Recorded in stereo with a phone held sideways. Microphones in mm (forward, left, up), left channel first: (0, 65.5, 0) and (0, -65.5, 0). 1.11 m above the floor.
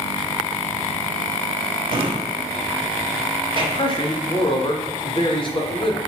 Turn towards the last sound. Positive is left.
turn(degrees=35)  # may be behind; listen again after turning